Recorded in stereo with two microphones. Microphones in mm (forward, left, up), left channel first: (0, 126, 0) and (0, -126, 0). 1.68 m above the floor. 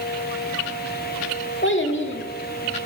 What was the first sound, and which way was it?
A child speaking, 50° left (ahead or behind).